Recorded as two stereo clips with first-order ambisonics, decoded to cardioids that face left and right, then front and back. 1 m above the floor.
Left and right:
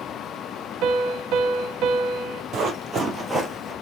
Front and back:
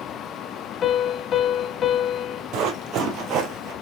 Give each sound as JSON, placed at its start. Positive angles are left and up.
{"t": 0.8, "sound": "a piano", "azimuth_deg": -60, "distance_m": 0.8}
{"t": 2.5, "sound": "running footsteps", "azimuth_deg": -150, "distance_m": 1.6}